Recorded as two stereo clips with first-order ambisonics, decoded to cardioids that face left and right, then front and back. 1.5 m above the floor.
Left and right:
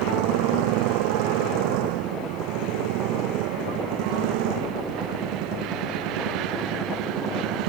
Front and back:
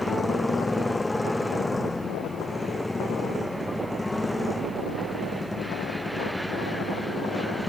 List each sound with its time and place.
0.0 s a motorcycle: 80° right